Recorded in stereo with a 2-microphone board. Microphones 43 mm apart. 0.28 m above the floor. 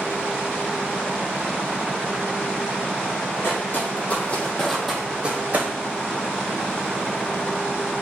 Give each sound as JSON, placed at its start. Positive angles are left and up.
{"t": 3.4, "sound": "footsteps", "side_deg": 60, "distance_m": 1.1}